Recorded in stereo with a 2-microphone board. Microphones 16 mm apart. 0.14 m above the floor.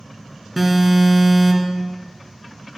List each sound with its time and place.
0.6 s an alarm: 10° right (ahead or behind), 1.8 m